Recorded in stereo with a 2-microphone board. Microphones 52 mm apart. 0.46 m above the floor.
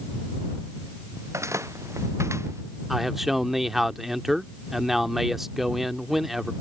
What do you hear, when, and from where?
1.2 s footsteps: 75° right (ahead or behind)
2.9 s a man speaking: 5° right (ahead or behind)